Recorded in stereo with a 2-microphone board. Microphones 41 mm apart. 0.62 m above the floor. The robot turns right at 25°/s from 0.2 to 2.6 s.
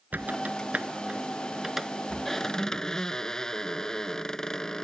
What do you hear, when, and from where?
0.1 s a squeak: 45° right; by 4.8 s 15° left